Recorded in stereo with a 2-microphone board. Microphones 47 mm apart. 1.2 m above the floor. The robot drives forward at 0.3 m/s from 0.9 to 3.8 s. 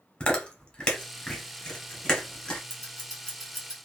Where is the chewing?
20° left (ahead or behind), 0.9 m; by 2.6 s 15° left (ahead or behind), 1.3 m.